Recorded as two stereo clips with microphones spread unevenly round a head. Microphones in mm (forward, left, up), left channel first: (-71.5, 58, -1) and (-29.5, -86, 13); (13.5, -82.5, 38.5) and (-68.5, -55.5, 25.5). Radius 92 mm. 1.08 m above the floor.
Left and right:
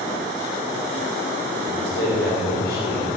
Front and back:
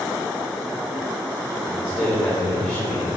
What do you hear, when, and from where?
1.7 s a man speaking: 75° left, 3.5 m